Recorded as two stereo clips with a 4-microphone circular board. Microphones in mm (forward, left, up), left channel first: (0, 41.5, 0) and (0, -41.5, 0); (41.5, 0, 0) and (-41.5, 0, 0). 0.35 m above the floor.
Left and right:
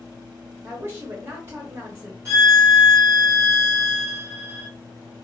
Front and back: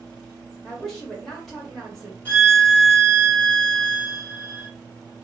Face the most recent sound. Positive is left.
turn(degrees=-60)